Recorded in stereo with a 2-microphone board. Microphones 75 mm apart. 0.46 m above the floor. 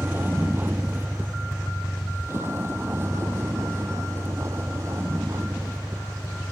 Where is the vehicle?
25° right (ahead or behind); by 6.5 s 40° right (ahead or behind).